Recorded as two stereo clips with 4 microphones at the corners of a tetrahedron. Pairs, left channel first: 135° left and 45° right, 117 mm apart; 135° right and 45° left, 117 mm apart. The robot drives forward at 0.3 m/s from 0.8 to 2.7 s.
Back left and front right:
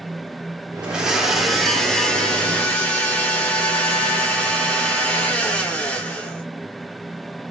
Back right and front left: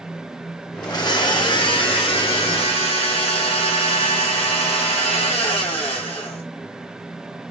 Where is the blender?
115° right, 0.9 m; by 6.4 s 150° right, 1.1 m.